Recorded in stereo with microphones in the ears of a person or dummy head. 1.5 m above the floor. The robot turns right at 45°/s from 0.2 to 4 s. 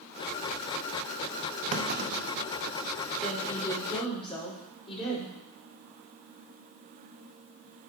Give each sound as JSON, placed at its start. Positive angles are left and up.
{"t": 1.7, "sound": "a clunk", "side_deg": -40, "distance_m": 0.7}
{"t": 3.2, "sound": "a woman speaking", "azimuth_deg": -5, "distance_m": 5.0}